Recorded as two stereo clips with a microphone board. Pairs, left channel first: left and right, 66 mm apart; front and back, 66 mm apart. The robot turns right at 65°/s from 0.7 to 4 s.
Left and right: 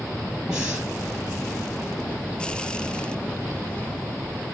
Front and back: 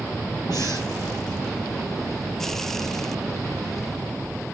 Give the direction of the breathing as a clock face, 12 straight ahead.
12 o'clock.